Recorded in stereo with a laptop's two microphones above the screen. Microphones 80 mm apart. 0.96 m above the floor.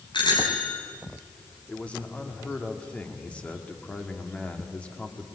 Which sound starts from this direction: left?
A bicycle bell, at 0.1 s.